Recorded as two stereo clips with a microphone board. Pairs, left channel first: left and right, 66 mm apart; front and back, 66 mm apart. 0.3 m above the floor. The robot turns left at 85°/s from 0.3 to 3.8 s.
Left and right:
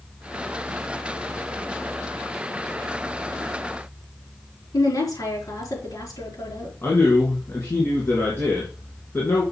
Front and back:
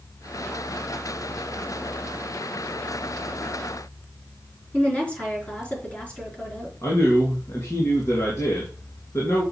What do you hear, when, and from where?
4.7 s a woman speaking: 70° left, 4.5 m
6.8 s a man speaking: 35° left, 3 m